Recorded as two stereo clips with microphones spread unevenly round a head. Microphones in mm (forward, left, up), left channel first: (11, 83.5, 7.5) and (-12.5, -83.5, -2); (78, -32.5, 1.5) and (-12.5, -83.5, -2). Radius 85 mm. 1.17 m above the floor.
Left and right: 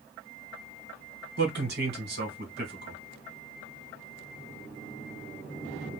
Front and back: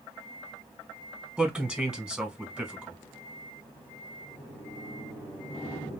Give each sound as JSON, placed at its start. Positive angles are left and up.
{"t": 1.4, "sound": "a man speaking", "azimuth_deg": -70, "distance_m": 1.7}